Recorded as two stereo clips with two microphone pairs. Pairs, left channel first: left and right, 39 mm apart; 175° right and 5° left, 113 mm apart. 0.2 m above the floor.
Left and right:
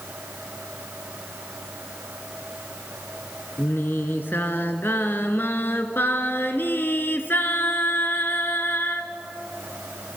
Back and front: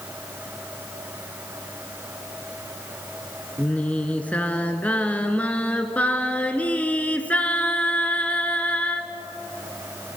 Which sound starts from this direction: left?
Singing, at 3.6 s.